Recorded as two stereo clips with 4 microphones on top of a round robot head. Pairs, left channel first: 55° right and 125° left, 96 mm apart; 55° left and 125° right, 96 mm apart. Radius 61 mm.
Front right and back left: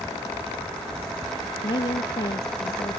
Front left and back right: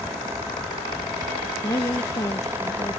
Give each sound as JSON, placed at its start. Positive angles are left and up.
{"t": 1.6, "sound": "a woman speaking", "azimuth_deg": -5}